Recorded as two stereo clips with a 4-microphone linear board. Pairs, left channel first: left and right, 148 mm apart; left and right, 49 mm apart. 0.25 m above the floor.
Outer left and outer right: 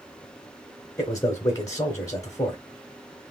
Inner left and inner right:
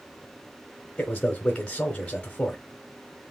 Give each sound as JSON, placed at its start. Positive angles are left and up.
{"t": 1.0, "sound": "a man speaking", "side_deg": 20, "distance_m": 1.1}